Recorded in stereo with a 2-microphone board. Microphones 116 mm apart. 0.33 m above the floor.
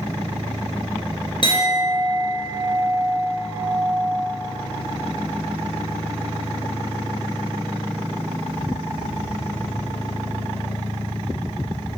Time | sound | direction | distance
1.4 | a clink | 45° left (ahead or behind) | 3 m